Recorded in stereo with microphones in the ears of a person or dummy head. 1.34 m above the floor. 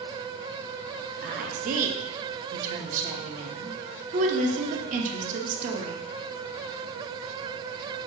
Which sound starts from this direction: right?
A woman speaking, at 1.2 s.